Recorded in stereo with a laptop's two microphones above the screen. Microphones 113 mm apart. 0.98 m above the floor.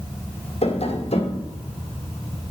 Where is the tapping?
55° left (ahead or behind), 1.9 m.